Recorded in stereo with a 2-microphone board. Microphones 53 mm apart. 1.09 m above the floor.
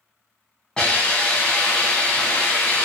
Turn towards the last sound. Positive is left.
turn(degrees=20)  # may be behind; listen again after turning